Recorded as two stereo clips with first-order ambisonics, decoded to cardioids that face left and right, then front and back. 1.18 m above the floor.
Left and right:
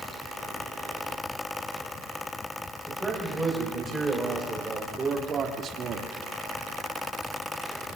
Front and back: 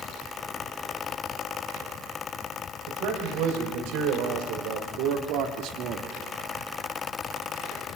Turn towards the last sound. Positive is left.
turn(degrees=-135)